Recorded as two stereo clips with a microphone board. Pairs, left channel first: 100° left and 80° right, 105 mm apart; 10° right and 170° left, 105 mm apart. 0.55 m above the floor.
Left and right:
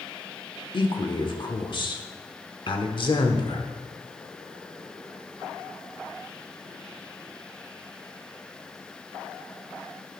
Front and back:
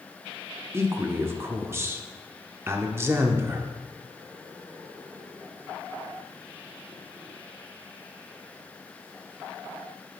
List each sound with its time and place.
0.7 s a man speaking: 110° left, 1.0 m